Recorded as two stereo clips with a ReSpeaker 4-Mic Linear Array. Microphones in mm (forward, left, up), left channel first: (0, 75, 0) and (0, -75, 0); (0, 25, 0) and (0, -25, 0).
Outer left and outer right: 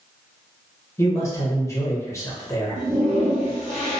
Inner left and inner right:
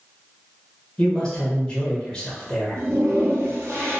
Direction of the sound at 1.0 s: 20° left (ahead or behind).